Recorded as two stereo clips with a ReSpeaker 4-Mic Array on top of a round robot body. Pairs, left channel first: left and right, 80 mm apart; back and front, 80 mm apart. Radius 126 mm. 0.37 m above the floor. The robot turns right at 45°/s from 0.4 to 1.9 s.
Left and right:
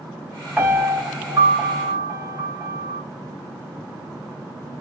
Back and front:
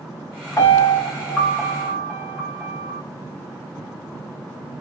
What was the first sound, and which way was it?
A piano, 155° right.